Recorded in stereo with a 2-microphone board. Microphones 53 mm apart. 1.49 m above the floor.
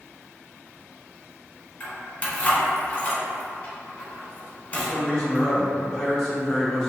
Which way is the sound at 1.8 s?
25° left (ahead or behind).